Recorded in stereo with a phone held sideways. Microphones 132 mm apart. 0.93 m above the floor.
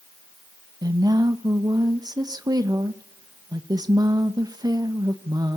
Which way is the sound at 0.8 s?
25° right (ahead or behind).